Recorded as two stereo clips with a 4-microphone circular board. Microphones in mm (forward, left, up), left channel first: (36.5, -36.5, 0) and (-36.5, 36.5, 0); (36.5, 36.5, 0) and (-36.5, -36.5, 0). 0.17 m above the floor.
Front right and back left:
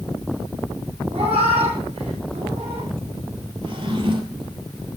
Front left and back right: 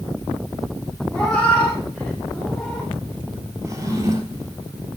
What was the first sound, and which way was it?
A cat meowing, 125° left.